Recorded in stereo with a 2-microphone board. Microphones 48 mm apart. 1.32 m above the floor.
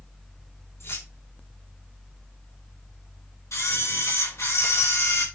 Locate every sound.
0.8 s keys jangling: 65° left (ahead or behind), 3.5 m
3.5 s a camera shutter: 80° left, 5 m